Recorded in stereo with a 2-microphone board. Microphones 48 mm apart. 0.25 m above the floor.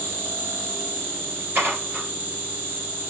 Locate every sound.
0.0 s an insect: 45° right (ahead or behind), 3 m
1.6 s dishes clattering: 40° right (ahead or behind), 3 m